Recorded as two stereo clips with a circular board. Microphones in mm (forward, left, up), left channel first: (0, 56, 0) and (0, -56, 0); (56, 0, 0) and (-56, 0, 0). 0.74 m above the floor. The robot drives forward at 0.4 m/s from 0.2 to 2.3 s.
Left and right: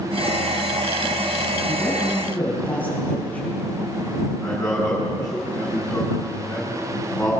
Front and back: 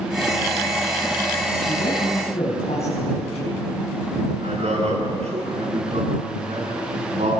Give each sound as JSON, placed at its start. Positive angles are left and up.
{"t": 1.7, "sound": "a man speaking", "azimuth_deg": 15, "distance_m": 5.5}
{"t": 4.4, "sound": "a man speaking", "azimuth_deg": 165, "distance_m": 8.0}